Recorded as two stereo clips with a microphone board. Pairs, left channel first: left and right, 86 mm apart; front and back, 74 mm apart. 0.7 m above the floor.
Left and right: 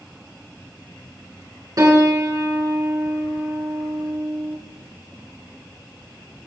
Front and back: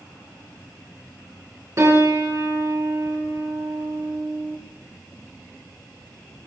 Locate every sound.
1.8 s a piano: 135° right, 4.5 m